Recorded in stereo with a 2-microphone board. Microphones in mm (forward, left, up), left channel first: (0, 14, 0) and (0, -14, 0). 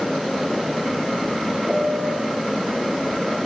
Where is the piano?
25° right (ahead or behind), 2.5 m.